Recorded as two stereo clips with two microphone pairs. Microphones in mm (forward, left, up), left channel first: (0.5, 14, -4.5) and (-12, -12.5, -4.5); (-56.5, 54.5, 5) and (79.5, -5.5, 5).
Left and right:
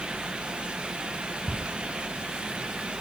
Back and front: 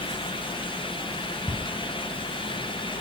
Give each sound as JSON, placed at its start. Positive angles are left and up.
{"t": 1.5, "sound": "a squeak", "azimuth_deg": 75, "distance_m": 1.4}